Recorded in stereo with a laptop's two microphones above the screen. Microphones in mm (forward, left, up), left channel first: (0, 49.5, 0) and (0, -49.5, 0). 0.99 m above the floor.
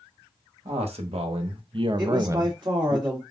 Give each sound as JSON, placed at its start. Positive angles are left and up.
{"t": 0.7, "sound": "a man speaking", "side_deg": -75, "distance_m": 1.2}
{"t": 2.0, "sound": "a woman speaking", "side_deg": -45, "distance_m": 1.8}